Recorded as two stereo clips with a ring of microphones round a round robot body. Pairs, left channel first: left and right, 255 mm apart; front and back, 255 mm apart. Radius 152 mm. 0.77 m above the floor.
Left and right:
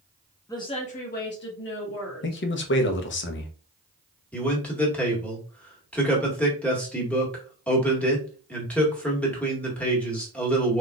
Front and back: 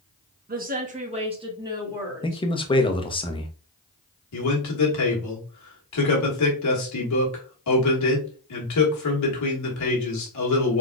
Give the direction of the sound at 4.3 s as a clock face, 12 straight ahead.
12 o'clock.